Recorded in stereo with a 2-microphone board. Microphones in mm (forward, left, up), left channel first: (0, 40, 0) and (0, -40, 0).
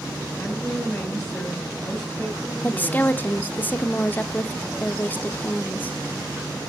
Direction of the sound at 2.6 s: 25° left (ahead or behind).